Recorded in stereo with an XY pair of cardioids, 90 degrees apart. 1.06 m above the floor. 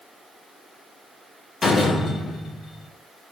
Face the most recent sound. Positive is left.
turn(degrees=55)